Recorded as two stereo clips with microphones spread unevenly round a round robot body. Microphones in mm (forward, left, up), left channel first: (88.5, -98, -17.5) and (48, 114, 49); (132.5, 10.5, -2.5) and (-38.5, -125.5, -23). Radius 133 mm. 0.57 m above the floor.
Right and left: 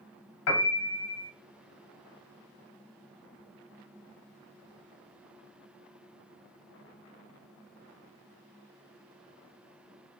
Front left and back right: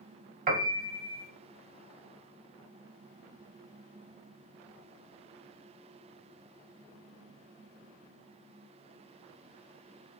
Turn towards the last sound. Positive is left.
turn(degrees=-90)